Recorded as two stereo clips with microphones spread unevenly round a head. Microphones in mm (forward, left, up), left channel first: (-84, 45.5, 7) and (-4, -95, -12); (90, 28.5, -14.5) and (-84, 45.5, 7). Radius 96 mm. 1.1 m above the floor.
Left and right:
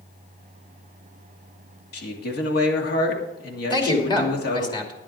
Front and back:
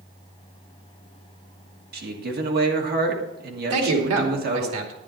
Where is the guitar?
No guitar in this recording.